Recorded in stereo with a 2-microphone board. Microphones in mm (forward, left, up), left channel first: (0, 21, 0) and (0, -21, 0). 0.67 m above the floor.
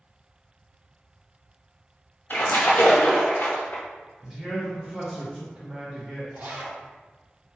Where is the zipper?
35° right (ahead or behind), 0.5 m.